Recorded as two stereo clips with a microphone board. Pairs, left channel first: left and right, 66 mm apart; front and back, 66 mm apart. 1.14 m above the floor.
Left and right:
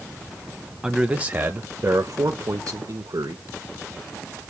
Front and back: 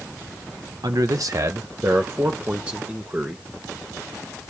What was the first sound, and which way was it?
A man speaking, 170° right.